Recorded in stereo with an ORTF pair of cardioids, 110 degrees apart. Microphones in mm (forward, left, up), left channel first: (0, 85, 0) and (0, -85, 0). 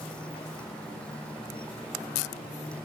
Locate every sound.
0.0 s a motorcycle: 5° left